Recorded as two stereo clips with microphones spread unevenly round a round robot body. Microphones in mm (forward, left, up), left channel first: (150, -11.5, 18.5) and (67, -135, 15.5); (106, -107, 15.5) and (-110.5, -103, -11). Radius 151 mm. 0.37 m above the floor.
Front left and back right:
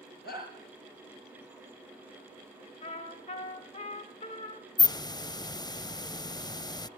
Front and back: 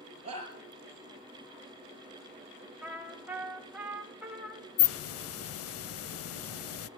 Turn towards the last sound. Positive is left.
turn(degrees=-10)